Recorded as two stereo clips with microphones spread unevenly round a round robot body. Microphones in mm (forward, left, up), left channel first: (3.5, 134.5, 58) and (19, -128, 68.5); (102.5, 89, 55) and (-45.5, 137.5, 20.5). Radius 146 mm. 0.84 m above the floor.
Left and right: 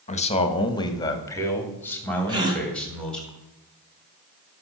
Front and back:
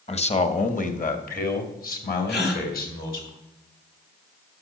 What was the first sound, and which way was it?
A man speaking, 35° left.